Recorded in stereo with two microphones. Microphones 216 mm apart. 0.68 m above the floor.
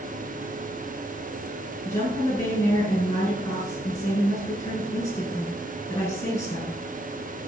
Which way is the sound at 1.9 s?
15° left (ahead or behind).